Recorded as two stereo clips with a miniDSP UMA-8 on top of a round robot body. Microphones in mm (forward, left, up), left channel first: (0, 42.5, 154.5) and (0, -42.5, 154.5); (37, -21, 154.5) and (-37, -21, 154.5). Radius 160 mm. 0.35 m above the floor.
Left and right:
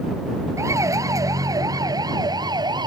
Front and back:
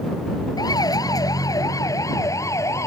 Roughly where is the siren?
Ahead right.